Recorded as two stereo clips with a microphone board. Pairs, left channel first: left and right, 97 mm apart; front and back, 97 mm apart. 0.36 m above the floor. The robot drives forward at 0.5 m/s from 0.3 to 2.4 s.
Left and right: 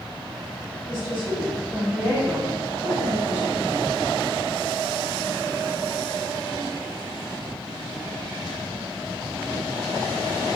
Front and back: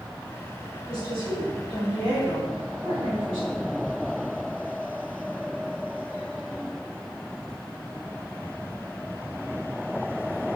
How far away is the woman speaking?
About 1.4 m.